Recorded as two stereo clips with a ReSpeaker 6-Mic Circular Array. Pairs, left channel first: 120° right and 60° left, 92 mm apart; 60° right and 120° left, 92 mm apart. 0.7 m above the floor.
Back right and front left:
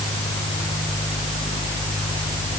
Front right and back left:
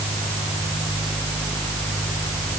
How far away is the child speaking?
I don't hear a child speaking.